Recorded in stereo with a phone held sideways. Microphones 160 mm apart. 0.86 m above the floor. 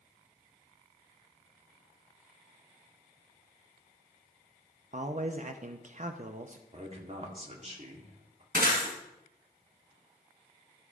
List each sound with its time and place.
4.9 s a man speaking: 50° right (ahead or behind), 0.6 m
6.7 s a man speaking: 45° right (ahead or behind), 2.0 m
8.5 s breaking glass: 70° right (ahead or behind), 4 m